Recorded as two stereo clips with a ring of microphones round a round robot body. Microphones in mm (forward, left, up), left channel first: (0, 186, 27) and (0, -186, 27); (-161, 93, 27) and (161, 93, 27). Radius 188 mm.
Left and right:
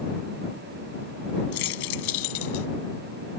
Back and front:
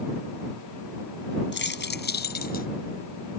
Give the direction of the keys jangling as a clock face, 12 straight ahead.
8 o'clock.